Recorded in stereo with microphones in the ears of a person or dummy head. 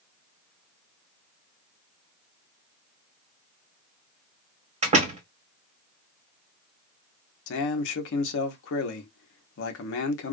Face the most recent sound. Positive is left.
turn(degrees=70)  # may be behind; listen again after turning